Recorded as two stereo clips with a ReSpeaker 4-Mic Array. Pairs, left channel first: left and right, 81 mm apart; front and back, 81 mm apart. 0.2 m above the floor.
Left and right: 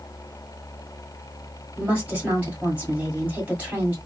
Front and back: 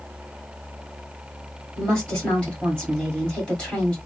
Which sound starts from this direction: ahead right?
A woman speaking, at 1.8 s.